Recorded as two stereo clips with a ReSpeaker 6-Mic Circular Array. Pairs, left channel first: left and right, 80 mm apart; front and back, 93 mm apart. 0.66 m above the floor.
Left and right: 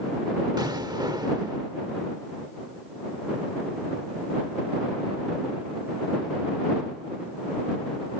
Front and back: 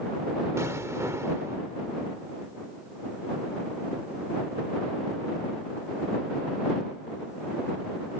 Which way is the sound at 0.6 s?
120° right.